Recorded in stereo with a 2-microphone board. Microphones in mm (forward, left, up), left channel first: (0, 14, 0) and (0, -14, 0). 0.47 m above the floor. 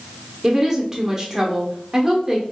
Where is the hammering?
No hammering in this recording.